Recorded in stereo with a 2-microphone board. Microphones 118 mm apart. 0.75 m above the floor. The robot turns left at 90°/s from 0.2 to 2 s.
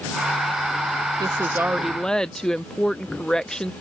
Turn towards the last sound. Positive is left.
turn(degrees=170)